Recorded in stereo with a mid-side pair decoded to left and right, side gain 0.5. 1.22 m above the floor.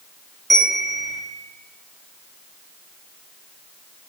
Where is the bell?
25° right, 2.5 m.